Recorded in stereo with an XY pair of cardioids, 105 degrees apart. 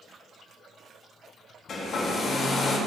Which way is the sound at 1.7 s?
50° left.